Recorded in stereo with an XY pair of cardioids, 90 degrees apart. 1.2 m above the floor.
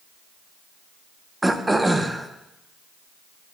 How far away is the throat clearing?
About 0.8 m.